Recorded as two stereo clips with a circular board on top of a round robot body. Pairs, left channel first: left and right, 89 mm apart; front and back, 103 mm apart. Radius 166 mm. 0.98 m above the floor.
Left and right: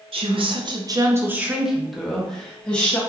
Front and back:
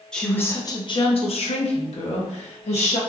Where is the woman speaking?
85° right, 0.7 m; by 3.0 s 15° left, 1.4 m.